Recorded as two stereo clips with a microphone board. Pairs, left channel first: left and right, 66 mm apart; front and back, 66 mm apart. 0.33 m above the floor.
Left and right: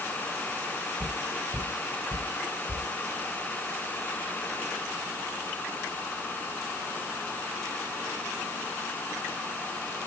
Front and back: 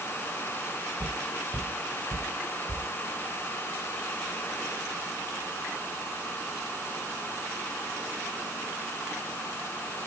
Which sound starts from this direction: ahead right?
Footsteps, at 1.0 s.